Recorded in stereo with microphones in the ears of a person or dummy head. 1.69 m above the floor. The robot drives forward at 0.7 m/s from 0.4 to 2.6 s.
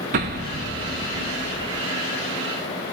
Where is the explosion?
35° right (ahead or behind), 1.2 m; by 1.9 s 25° right (ahead or behind), 1.7 m.